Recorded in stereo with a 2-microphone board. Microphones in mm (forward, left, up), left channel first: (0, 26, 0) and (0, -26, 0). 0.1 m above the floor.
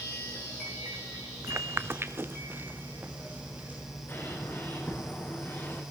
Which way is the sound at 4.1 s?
45° left (ahead or behind).